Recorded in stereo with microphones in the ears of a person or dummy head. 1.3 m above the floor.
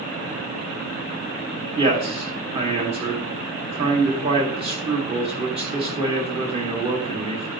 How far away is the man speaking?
About 2.5 m.